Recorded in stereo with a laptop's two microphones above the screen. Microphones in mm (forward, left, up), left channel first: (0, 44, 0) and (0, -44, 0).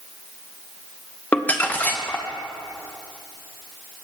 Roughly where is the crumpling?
Centre.